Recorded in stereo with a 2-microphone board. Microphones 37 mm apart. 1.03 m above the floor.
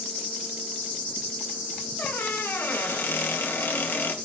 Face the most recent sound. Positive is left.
turn(degrees=75)  # may be behind; listen again after turning